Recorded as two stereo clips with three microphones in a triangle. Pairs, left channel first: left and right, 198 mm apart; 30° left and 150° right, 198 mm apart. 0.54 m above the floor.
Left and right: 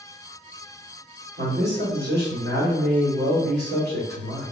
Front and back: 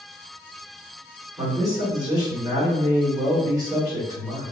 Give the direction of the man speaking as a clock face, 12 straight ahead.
3 o'clock.